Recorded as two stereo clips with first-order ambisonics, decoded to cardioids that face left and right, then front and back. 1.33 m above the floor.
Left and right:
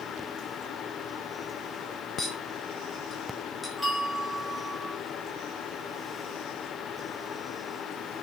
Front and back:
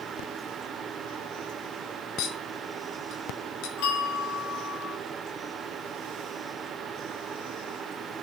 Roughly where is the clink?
Ahead.